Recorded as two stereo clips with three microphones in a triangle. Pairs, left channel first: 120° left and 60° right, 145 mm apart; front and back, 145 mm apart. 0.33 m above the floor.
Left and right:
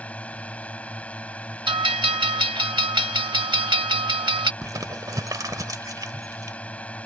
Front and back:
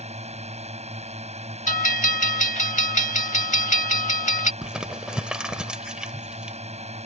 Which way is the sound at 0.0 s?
160° right.